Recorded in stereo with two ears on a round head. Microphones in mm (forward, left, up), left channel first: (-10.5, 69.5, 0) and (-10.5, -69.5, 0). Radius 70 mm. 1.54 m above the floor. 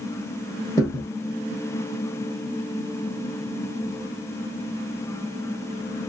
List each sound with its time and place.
0.8 s a thud: 20° left (ahead or behind), 1.9 m